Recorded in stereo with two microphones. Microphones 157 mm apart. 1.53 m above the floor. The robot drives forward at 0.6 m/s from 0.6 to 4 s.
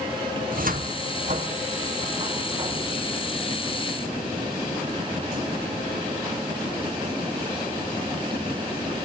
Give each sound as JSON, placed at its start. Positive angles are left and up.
{"t": 0.4, "sound": "a cupboard door", "side_deg": -70, "distance_m": 1.1}